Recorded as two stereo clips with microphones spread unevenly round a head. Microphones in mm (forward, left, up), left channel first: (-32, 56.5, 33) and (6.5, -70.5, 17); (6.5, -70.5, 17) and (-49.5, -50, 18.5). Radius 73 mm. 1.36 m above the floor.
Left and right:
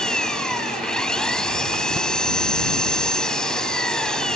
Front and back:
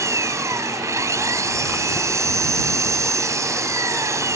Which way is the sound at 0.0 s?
170° right.